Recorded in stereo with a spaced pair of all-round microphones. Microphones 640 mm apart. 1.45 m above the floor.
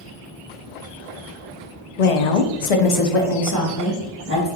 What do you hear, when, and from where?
2.0 s a woman speaking: 70° left (ahead or behind), 0.8 m; by 4.5 s 15° left (ahead or behind), 1.7 m